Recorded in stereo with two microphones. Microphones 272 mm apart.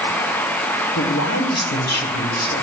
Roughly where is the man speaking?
Left.